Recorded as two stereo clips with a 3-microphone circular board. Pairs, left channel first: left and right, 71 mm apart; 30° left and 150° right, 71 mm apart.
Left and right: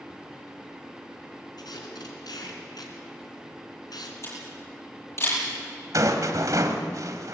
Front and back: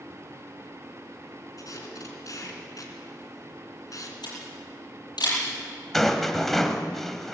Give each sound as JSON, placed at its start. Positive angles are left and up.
{"t": 1.6, "sound": "tape being pulled", "azimuth_deg": 65, "distance_m": 3.5}
{"t": 4.2, "sound": "a camera shutter", "azimuth_deg": 40, "distance_m": 10.0}
{"t": 5.9, "sound": "a rattle", "azimuth_deg": -55, "distance_m": 1.8}